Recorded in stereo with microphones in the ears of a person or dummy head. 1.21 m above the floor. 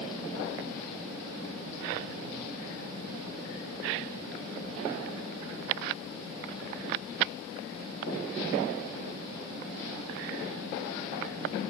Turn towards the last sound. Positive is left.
No sound to turn to.